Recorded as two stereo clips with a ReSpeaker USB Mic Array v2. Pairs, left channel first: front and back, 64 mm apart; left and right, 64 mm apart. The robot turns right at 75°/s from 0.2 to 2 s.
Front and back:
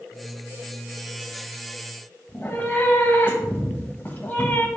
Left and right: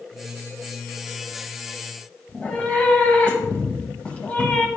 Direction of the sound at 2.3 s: 35° left.